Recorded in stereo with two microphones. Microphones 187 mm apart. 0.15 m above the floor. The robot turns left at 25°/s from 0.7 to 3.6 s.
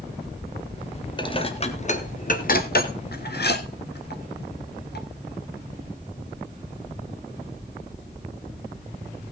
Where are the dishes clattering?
25° left (ahead or behind), 1.4 m; by 5.1 s 60° left (ahead or behind), 1.4 m.